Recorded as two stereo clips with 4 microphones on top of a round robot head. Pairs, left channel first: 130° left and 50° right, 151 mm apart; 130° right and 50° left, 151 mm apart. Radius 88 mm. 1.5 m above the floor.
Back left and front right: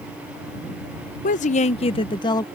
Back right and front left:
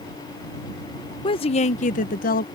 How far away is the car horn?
No car horn in this recording.